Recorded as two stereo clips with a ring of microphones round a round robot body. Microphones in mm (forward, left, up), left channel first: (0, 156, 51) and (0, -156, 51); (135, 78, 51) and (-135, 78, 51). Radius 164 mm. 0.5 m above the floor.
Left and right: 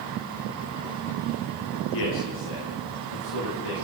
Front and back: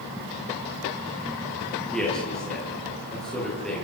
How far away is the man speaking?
About 8.5 m.